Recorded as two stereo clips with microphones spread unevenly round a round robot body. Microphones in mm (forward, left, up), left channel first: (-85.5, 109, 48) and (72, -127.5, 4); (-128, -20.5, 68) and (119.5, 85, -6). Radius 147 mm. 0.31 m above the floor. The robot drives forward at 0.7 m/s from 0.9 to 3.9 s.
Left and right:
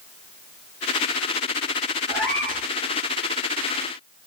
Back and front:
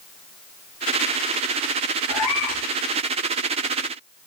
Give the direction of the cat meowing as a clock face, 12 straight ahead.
5 o'clock.